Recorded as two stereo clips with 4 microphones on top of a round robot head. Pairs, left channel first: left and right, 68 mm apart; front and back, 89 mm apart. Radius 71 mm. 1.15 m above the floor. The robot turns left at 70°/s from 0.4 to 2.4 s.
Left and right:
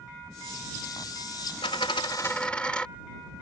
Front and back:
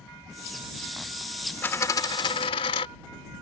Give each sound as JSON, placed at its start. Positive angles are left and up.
{"t": 1.6, "sound": "a dropped coin", "azimuth_deg": 65}